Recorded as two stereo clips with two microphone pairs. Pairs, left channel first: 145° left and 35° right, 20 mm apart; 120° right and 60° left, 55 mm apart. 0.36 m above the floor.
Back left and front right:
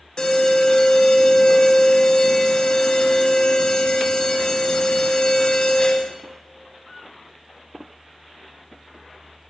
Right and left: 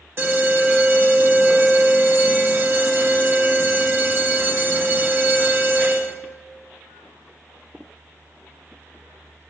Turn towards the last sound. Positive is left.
turn(degrees=100)